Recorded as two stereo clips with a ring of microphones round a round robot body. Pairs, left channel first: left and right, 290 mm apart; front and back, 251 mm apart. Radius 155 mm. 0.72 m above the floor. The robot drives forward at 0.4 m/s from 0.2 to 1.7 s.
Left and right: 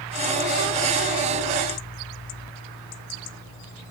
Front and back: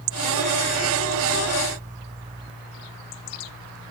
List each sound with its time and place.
Only background noise.